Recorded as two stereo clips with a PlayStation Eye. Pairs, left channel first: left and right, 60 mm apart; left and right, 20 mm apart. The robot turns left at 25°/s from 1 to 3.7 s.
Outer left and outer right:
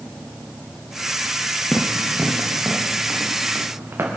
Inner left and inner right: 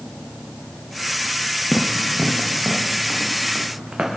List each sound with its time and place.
1.7 s running footsteps: 20° left (ahead or behind), 1.7 m; by 4.1 s 40° right (ahead or behind), 3 m